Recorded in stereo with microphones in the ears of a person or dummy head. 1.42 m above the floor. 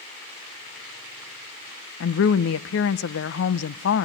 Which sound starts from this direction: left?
A woman speaking, at 2.0 s.